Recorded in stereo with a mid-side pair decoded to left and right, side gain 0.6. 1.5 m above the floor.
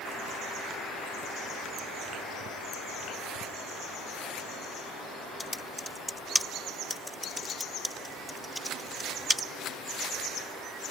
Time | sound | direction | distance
5.4 | typing on a keyboard | 5° left | ?